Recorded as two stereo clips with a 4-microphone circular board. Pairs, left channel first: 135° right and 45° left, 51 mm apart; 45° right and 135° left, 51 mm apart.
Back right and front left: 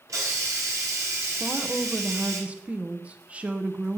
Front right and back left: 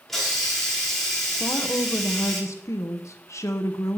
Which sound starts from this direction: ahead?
A woman speaking, at 1.4 s.